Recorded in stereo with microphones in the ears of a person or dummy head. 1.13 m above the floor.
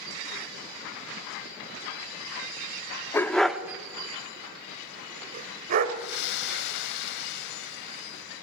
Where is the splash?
60° left (ahead or behind), 1.9 m.